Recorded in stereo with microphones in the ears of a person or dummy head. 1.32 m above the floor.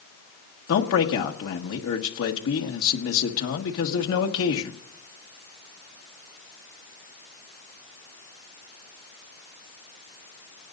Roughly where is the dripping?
I don't hear dripping.